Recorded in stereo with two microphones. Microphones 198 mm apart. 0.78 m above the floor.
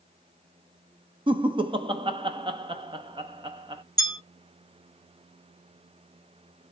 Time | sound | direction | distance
1.3 | laughter | 25° right (ahead or behind) | 0.8 m
4.0 | a bell | 20° left (ahead or behind) | 1.9 m